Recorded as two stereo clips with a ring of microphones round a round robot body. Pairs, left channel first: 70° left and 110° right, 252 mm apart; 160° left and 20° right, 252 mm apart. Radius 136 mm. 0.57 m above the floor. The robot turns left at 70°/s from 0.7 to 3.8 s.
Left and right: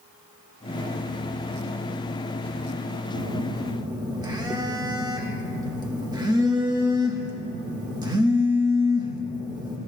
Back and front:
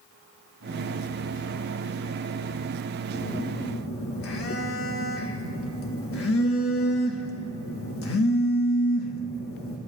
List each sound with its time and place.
3.1 s a phone buzzing: 140° right, 1.6 m; by 9.8 s 175° left, 1.6 m